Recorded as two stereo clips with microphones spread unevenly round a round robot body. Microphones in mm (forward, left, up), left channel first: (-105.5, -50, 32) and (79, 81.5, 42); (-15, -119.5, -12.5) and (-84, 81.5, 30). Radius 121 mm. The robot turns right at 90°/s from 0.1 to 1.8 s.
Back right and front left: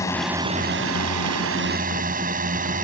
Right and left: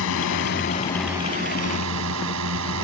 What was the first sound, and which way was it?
A drone, 65° right.